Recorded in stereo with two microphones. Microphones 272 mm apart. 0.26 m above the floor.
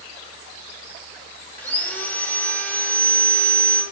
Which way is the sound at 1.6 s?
5° left (ahead or behind).